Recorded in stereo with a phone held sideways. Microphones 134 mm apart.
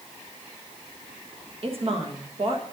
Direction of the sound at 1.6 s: 45° right (ahead or behind).